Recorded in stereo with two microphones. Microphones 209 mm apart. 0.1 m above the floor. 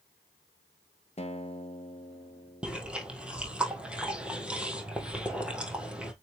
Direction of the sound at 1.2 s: 30° left (ahead or behind).